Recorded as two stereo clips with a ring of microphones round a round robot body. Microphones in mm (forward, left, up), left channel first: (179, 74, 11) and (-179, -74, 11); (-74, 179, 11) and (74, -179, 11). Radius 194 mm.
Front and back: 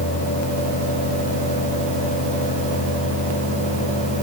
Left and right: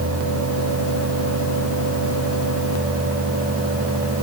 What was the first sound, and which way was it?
Only background noise.